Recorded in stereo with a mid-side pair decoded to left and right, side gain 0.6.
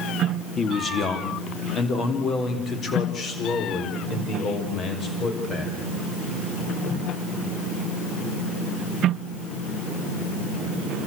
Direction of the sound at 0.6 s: 30° left.